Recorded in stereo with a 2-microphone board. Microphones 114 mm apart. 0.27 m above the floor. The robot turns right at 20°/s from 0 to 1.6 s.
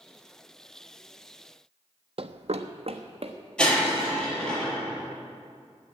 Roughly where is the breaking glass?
Centre.